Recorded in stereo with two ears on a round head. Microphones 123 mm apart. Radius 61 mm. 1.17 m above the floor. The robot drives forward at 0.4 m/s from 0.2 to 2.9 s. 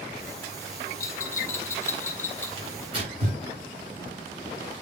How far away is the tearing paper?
About 6 m.